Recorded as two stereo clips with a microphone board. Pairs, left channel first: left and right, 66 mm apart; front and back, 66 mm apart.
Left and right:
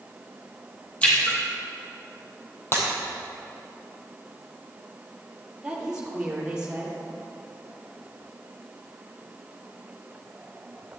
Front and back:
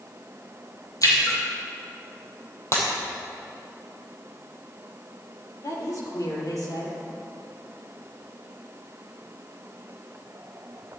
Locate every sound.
1.0 s a splash: 20° left, 3 m
2.7 s breaking glass: 40° left, 2.5 m
5.6 s a woman speaking: 10° right, 3.5 m